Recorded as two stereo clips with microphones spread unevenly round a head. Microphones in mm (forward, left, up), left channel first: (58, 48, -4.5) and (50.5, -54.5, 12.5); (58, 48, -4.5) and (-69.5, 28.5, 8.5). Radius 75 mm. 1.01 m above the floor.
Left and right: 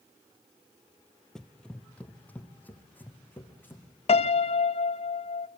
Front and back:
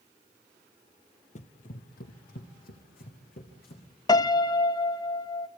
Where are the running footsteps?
5° right, 1.3 m; by 3.8 s 10° left, 4.5 m.